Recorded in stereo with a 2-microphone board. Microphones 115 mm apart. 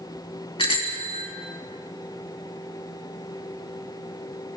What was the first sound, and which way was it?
A bicycle bell, 50° left (ahead or behind).